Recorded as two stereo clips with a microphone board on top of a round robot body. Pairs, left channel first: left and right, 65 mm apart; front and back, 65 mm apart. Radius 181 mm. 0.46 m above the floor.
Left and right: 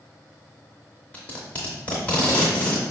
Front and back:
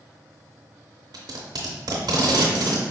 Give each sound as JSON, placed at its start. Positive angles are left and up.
{"t": 1.1, "sound": "tape being pulled", "azimuth_deg": 160, "distance_m": 0.6}